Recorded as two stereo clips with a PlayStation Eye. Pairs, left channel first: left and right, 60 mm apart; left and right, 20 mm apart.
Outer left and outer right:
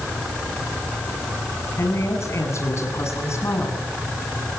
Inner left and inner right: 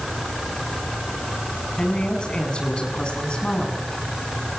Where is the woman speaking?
50° left (ahead or behind), 8 m.